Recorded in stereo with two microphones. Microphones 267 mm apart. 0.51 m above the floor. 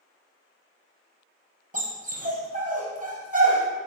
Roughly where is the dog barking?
Right.